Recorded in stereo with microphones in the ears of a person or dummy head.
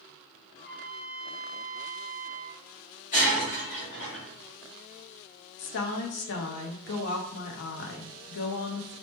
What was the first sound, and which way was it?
A trumpet, 20° left (ahead or behind).